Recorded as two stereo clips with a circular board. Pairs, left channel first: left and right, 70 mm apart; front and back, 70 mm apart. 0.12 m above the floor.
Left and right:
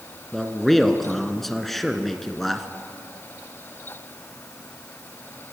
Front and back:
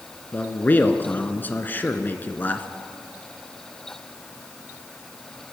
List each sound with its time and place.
0.3 s a man speaking: 5° left, 1.5 m